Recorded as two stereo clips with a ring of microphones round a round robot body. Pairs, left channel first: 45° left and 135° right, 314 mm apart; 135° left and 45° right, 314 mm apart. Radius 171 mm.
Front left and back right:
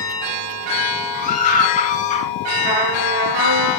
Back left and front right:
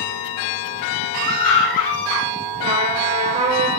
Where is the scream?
110° left, 9 m; by 2.3 s 115° left, 8.5 m.